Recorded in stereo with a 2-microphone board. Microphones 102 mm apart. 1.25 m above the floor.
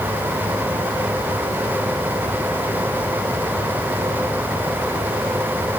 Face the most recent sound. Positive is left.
No sound to turn to.